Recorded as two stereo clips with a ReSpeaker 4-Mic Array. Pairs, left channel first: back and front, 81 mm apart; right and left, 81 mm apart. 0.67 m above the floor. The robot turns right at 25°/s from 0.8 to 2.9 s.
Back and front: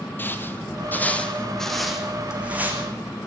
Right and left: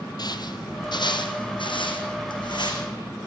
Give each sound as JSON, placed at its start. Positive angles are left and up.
{"t": 0.2, "sound": "footsteps", "azimuth_deg": -115, "distance_m": 1.4}